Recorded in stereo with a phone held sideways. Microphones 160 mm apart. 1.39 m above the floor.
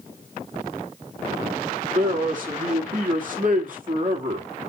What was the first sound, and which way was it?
A man speaking, 60° right (ahead or behind).